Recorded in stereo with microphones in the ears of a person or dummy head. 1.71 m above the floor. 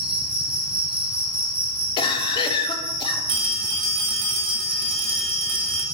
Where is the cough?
35° left (ahead or behind), 1.0 m.